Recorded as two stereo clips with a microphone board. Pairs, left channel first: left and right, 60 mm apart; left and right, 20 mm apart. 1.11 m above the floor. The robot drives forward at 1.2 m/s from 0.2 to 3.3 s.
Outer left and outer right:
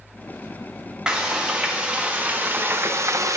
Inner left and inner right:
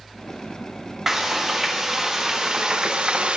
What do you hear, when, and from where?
1.1 s frying: 15° right (ahead or behind), 3 m; by 3.4 s 60° right (ahead or behind), 0.8 m